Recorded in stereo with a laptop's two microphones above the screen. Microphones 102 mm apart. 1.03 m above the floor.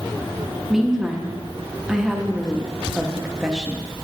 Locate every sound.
0.7 s a woman speaking: 5° right (ahead or behind), 0.7 m